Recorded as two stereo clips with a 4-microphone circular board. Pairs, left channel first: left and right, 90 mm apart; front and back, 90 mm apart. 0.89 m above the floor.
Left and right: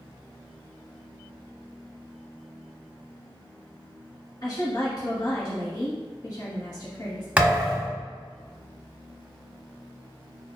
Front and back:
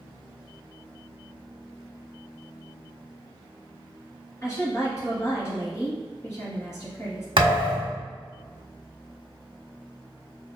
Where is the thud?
160° right, 1.2 m.